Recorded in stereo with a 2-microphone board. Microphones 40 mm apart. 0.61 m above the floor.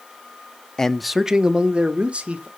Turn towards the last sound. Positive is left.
turn(degrees=-30)  # may be behind; listen again after turning